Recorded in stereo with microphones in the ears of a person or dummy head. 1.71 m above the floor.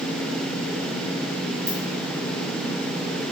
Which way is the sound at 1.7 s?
65° right (ahead or behind).